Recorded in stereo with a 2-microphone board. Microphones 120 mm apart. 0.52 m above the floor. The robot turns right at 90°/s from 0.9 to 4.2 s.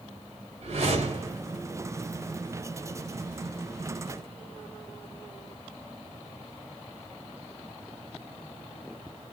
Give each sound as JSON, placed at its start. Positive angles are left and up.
{"t": 0.6, "sound": "a whoosh", "azimuth_deg": -90, "distance_m": 1.7}